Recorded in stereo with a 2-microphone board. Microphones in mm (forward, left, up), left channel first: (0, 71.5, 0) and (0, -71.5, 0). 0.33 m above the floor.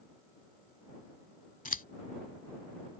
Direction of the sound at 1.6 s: 70° left (ahead or behind).